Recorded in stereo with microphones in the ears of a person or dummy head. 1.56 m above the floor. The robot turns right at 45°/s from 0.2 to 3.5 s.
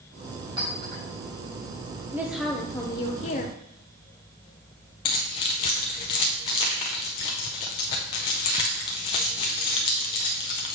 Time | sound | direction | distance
0.6 | a clink | 25° right (ahead or behind) | 4 m
2.1 | a woman speaking | 15° right | 0.7 m
5.0 | keys jangling | 20° left (ahead or behind) | 0.6 m